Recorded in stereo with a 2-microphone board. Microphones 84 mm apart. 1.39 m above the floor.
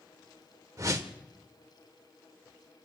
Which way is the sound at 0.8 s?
40° right (ahead or behind).